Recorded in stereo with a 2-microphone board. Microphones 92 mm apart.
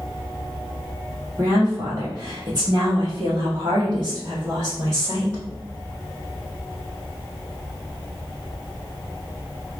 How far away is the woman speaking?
About 1.5 m.